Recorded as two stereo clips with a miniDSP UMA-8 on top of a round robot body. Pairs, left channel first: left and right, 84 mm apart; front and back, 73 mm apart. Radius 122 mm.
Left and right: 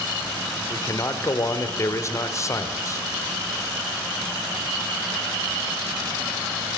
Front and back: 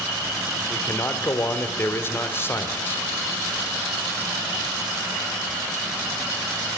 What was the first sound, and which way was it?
A man speaking, 50° left.